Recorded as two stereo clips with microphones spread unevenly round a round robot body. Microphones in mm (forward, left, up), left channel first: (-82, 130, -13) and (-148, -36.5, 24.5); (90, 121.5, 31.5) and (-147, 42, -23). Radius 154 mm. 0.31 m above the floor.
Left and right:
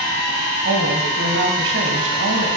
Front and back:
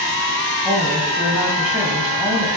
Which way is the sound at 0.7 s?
85° right.